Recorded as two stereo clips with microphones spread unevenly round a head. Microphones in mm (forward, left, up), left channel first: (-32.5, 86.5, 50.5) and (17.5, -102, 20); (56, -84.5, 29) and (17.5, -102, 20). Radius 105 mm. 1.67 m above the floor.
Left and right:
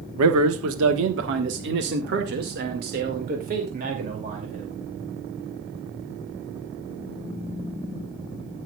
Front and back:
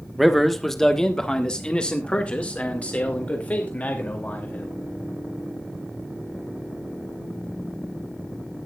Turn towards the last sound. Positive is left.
turn(degrees=-20)